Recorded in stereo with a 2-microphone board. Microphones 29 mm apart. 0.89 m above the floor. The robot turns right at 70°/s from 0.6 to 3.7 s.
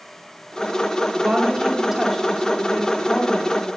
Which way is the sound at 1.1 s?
70° right.